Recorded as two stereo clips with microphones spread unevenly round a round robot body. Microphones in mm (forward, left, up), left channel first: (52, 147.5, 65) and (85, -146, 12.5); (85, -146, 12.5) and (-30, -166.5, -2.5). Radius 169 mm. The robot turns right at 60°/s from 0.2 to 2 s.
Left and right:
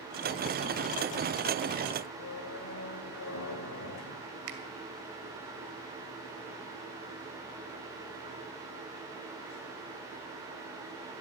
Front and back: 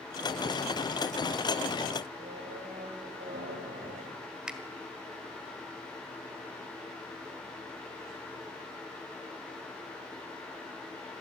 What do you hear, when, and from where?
2.2 s a squeak: 145° left, 2 m
4.5 s a finger snap: 85° right, 2 m